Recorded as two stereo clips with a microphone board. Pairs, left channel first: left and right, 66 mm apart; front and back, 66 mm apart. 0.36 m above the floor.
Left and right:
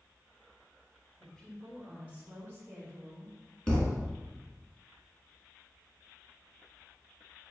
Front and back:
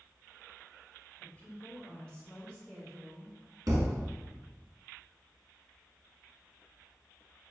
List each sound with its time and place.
1.2 s a woman speaking: 30° left, 1.4 m; by 3.3 s 80° right, 2 m
3.7 s a thud: 165° left, 1.3 m